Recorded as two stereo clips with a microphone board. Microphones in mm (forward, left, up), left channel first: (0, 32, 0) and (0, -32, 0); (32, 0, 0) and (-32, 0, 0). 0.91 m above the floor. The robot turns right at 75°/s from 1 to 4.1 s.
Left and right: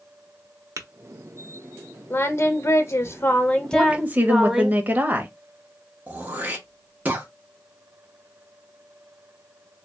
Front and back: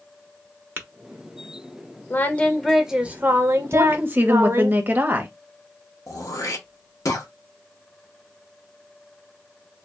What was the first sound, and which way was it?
Tapping, 125° right.